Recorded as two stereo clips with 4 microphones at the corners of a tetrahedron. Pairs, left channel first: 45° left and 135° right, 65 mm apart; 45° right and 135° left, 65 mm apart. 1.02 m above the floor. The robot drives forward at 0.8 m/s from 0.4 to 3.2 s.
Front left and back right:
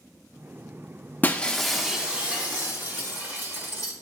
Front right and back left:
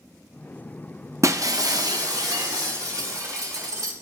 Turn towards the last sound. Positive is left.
turn(degrees=165)